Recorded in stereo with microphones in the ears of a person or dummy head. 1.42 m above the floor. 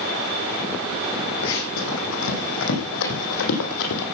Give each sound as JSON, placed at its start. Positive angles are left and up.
{"t": 1.4, "sound": "running footsteps", "side_deg": 70, "distance_m": 5.0}